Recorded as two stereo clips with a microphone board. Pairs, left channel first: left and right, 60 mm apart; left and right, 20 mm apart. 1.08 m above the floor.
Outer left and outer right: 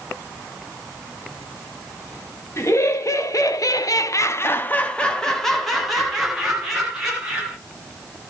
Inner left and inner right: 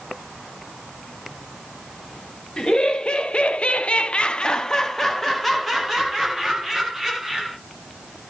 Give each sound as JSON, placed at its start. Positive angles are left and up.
{"t": 2.6, "sound": "laughter", "side_deg": 50, "distance_m": 1.1}